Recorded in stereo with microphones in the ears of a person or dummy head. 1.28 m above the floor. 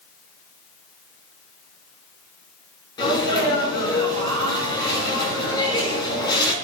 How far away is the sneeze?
About 5.5 m.